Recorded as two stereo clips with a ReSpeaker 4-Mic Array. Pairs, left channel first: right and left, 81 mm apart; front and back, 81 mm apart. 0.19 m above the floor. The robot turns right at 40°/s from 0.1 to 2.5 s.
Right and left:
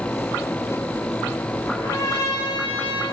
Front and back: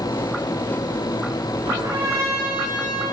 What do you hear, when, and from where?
1.7 s a trumpet: 150° right, 2.5 m; by 3.0 s 115° right, 2.5 m